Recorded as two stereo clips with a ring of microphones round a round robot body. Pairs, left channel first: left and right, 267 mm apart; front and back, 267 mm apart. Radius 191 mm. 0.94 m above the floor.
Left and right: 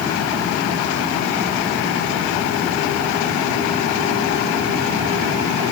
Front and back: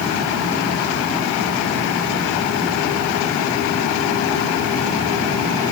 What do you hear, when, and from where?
Only background noise.